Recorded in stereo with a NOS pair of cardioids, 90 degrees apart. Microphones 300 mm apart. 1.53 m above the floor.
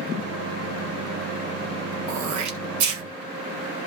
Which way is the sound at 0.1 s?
55° right.